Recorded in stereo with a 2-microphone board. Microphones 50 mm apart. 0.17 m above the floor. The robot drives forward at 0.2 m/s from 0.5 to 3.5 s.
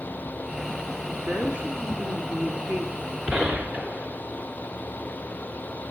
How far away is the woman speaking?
About 1.3 m.